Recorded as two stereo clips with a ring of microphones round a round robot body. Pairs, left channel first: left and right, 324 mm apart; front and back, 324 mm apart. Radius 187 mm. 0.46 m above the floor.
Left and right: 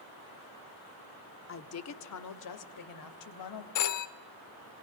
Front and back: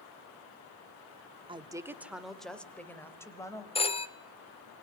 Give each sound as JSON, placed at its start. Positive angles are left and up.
{"t": 1.5, "sound": "a woman speaking", "azimuth_deg": 115, "distance_m": 1.5}
{"t": 3.8, "sound": "a phone ringing", "azimuth_deg": 70, "distance_m": 1.4}